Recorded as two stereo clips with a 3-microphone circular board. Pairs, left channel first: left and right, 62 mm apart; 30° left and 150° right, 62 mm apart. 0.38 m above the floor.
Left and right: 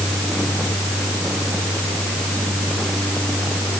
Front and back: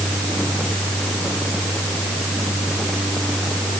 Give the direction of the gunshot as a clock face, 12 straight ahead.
I don't hear a gunshot.